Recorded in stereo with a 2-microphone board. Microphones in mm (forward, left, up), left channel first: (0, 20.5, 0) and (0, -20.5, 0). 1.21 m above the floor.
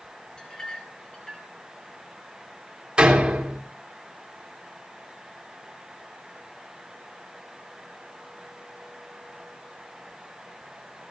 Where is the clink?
20° left (ahead or behind), 4.5 m.